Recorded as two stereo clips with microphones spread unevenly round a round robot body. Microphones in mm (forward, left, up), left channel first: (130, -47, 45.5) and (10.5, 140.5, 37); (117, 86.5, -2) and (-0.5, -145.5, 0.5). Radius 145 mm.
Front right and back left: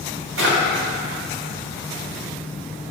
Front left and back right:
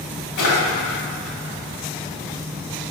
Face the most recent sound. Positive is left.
turn(degrees=95)